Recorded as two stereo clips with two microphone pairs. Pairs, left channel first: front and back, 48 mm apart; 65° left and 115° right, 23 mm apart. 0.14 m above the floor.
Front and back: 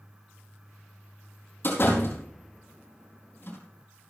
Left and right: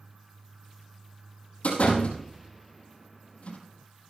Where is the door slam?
40° left, 4 m.